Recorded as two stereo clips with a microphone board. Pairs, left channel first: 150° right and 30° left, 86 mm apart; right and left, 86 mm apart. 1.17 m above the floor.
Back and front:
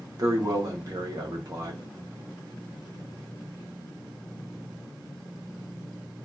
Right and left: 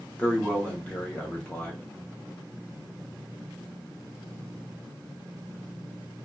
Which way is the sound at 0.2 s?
15° right.